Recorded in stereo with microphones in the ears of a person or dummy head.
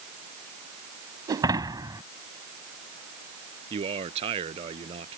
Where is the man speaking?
35° right (ahead or behind).